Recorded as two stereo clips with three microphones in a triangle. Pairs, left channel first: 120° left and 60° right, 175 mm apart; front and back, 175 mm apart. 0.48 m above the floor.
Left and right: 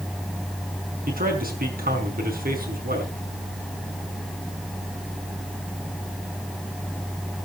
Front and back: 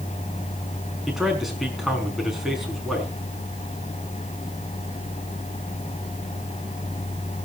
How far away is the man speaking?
About 5 m.